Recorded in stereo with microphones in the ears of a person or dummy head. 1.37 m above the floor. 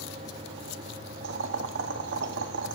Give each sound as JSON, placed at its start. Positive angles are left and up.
{"t": 1.2, "sound": "boiling", "side_deg": -60, "distance_m": 1.6}